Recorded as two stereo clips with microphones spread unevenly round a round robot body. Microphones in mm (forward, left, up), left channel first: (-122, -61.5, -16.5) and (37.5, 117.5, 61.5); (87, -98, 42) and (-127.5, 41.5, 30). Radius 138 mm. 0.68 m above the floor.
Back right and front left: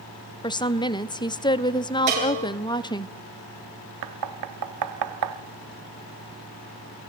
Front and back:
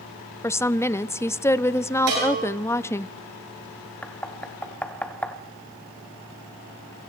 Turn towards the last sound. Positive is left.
turn(degrees=50)